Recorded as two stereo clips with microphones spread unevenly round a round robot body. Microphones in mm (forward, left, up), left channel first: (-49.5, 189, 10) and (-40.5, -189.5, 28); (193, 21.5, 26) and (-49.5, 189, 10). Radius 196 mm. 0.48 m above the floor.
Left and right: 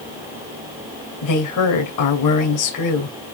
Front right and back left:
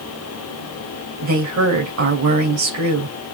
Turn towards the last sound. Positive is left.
turn(degrees=125)